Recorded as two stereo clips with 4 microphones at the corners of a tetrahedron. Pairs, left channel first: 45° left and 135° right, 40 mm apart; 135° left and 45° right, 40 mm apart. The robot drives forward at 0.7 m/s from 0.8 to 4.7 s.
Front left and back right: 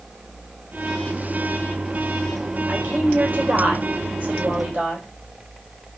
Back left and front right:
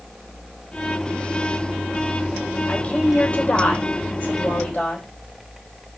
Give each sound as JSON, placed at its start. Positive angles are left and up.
{"t": 2.7, "sound": "a woman speaking", "azimuth_deg": -175, "distance_m": 2.5}